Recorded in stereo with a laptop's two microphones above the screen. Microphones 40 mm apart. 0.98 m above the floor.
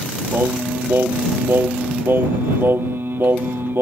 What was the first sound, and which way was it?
Singing, 75° right (ahead or behind).